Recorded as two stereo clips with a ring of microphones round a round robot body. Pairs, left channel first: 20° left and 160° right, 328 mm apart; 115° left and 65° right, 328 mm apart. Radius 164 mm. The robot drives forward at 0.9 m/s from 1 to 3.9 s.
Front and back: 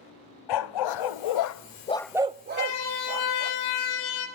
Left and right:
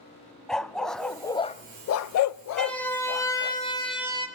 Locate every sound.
0.5 s a dog barking: 25° left, 1.0 m; by 3.5 s 165° left, 1.5 m
2.5 s a siren: 25° left, 2.5 m; by 4.3 s 35° left, 4 m